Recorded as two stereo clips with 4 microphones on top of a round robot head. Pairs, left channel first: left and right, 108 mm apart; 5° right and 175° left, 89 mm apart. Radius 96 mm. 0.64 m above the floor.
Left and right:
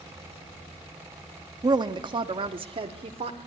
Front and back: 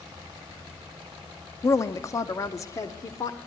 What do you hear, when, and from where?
1.6 s a woman speaking: 55° right, 1.1 m; by 3.4 s 60° right, 2 m